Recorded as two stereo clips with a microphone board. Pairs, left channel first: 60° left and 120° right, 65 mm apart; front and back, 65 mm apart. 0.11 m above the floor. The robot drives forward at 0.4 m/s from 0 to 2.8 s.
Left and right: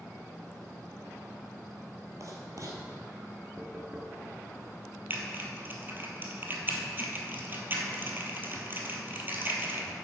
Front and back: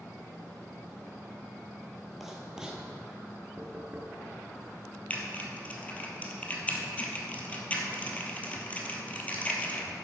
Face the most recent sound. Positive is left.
turn(degrees=-65)